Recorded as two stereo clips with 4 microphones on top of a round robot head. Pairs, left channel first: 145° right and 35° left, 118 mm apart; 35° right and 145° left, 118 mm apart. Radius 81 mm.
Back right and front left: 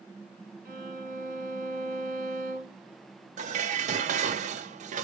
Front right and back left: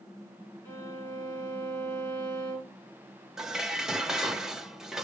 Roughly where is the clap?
I don't hear a clap.